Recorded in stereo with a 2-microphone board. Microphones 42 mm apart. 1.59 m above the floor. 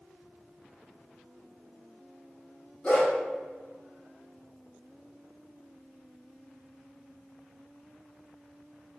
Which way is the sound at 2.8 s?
25° left (ahead or behind).